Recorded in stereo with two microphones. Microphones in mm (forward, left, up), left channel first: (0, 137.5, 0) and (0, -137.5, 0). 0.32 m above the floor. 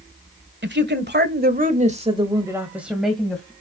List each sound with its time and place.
0.6 s a woman speaking: 40° right (ahead or behind), 1.4 m; by 3.5 s 5° left (ahead or behind), 1.8 m